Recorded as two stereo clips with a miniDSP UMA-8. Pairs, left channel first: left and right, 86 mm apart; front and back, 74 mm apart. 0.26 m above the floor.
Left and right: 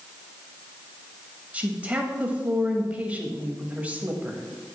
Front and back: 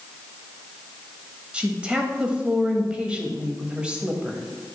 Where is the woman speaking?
130° right, 0.9 m.